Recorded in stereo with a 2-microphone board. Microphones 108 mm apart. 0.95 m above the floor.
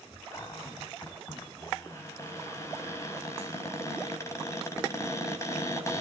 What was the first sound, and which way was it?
A cupboard door, 25° left (ahead or behind).